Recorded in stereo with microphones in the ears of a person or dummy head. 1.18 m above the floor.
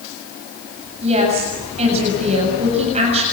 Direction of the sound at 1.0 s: 35° right (ahead or behind).